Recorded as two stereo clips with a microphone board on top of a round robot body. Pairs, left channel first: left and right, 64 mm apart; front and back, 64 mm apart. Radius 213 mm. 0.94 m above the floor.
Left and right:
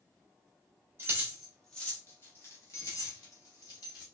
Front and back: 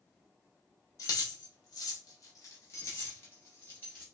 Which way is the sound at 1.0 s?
35° right.